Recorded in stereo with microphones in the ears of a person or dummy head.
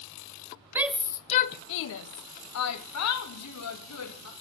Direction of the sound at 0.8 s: 15° right (ahead or behind).